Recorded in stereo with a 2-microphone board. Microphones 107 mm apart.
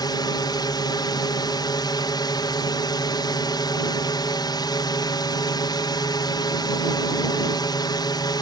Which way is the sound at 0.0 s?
40° left (ahead or behind).